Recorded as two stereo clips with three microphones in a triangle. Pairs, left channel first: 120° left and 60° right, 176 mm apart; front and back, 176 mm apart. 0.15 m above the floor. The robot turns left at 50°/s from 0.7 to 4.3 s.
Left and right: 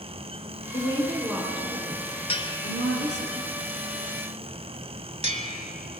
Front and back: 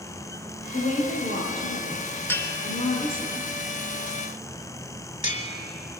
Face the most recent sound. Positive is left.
turn(degrees=-25)